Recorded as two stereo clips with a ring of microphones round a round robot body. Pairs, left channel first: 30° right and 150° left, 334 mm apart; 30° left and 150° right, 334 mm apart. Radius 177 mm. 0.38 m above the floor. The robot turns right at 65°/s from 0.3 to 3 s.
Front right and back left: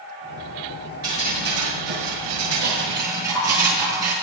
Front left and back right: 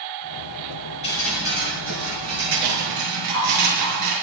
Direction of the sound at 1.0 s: 100° left.